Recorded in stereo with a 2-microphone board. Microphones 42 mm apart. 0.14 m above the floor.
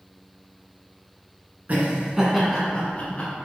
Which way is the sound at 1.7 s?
40° right (ahead or behind).